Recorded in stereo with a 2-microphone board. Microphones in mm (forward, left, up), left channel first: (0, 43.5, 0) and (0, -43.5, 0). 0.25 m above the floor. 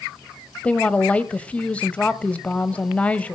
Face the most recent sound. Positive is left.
turn(degrees=15)  # may be behind; listen again after turning